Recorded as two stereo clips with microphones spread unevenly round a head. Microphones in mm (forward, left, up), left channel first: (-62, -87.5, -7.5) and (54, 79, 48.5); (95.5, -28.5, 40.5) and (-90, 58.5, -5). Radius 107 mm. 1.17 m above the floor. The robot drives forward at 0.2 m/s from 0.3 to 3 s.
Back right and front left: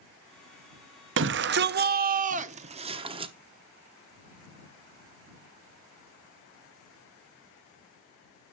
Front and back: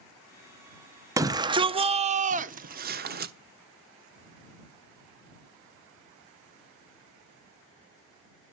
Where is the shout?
90° left, 0.6 m; by 3.3 s 125° left, 0.7 m.